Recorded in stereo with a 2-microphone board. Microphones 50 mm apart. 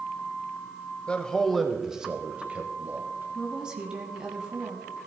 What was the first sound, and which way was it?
A man speaking, 20° left (ahead or behind).